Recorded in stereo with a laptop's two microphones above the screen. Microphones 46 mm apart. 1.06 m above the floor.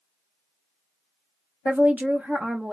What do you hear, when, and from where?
1.6 s a woman speaking: 35° right (ahead or behind), 0.6 m; by 2.7 s 25° right (ahead or behind), 0.9 m